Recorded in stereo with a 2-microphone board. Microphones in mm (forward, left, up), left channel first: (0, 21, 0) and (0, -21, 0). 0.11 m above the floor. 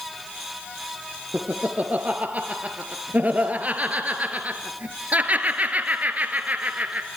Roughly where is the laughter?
Right.